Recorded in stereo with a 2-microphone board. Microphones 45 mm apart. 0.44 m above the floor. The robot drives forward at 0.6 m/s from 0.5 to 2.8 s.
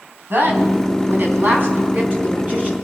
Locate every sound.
0.3 s a woman speaking: 50° right (ahead or behind), 3.5 m; by 2.7 s 40° right (ahead or behind), 4 m